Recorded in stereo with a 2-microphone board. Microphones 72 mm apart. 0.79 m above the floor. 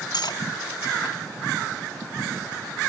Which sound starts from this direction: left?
Cutlery clinking, at 0.1 s.